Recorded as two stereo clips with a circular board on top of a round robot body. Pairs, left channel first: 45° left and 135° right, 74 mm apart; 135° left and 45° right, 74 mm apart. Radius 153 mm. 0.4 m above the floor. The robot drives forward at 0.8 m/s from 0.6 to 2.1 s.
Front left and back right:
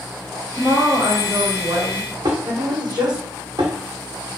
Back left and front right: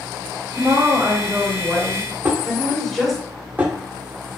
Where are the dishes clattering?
110° right, 1.6 m.